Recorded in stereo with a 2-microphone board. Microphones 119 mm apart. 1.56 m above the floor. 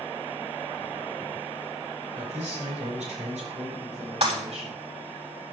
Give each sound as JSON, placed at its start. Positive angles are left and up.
{"t": 2.1, "sound": "a man speaking", "side_deg": -80, "distance_m": 6.5}
{"t": 4.2, "sound": "breaking glass", "side_deg": -60, "distance_m": 6.5}